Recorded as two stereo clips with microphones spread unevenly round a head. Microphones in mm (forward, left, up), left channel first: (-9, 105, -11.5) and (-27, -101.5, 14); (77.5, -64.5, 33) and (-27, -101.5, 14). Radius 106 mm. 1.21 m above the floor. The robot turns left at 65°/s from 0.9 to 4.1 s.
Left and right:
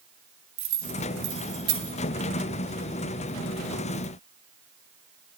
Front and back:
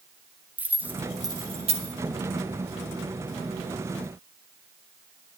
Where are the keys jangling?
85° right, 1.8 m; by 1.9 s 150° right, 1.8 m.